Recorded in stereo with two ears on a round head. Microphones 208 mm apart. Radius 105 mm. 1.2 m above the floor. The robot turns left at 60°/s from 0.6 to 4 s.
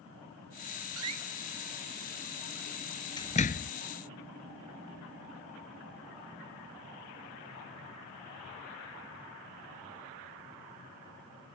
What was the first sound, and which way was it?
A door slam, 65° right (ahead or behind).